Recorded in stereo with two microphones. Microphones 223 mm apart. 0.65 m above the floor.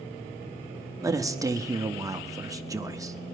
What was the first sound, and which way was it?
A man speaking, 15° right (ahead or behind).